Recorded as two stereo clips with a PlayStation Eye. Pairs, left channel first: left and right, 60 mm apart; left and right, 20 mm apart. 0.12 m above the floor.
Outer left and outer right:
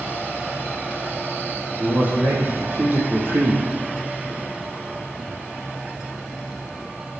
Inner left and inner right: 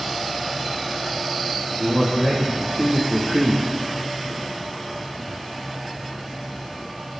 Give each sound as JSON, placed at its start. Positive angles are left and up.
{"t": 1.8, "sound": "a man speaking", "side_deg": -30, "distance_m": 4.5}